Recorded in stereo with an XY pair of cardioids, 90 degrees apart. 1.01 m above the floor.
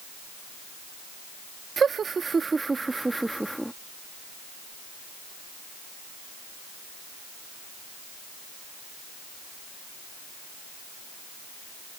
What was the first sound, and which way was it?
Laughter, 50° right.